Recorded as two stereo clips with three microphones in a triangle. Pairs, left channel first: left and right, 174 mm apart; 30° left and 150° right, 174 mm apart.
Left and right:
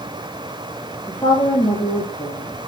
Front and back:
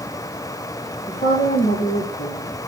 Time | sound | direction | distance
1.1 | a woman speaking | 15° left | 3 m